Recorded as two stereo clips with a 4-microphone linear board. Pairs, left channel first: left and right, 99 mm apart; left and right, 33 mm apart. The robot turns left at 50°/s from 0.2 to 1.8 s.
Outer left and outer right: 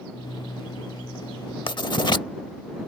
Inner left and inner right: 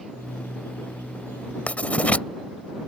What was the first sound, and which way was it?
Writing, 55° left (ahead or behind).